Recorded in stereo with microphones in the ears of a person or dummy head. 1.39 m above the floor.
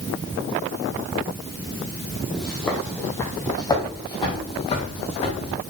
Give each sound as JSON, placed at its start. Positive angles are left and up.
{"t": 2.3, "sound": "footsteps", "side_deg": 0, "distance_m": 2.5}